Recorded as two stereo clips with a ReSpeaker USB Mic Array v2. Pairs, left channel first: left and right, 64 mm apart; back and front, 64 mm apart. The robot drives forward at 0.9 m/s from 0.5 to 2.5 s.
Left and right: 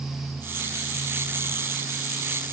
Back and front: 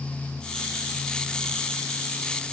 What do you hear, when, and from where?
Only background noise.